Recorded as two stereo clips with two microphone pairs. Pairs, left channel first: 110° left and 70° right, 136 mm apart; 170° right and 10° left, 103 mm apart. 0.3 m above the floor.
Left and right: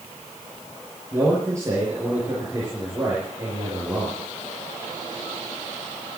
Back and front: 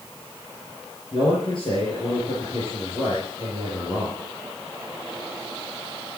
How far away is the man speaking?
About 6 m.